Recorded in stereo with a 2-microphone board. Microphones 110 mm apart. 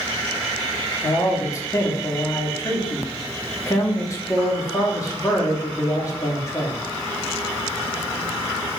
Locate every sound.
1.0 s a man speaking: 30° left (ahead or behind), 1.0 m